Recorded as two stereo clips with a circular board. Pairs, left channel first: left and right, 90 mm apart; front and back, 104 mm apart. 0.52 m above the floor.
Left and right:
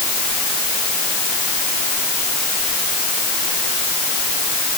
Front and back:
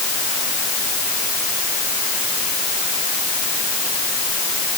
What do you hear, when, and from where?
Only background noise.